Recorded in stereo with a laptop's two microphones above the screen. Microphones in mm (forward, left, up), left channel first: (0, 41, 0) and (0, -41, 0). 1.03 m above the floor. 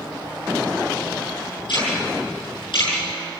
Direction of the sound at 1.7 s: 70° left (ahead or behind).